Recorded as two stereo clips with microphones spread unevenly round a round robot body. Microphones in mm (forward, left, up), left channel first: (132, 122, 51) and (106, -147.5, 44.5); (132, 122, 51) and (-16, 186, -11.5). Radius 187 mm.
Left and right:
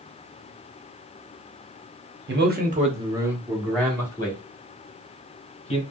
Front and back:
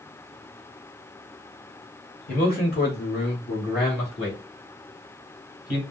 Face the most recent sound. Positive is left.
turn(degrees=20)